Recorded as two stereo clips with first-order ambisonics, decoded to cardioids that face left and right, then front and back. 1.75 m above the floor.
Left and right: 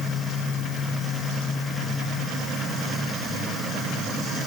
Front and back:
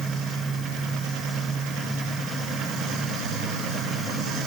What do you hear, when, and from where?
Only background noise.